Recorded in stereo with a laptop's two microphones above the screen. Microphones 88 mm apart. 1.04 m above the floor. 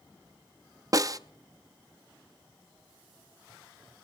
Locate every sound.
0.9 s a snare drum: 40° right (ahead or behind), 0.5 m